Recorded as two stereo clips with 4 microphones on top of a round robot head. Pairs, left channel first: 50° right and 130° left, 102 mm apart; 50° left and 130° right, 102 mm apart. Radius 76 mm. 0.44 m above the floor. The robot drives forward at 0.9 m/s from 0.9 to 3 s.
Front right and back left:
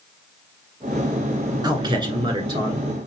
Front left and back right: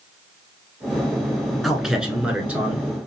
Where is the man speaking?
150° left, 1.7 m; by 2.8 s 165° left, 2.5 m.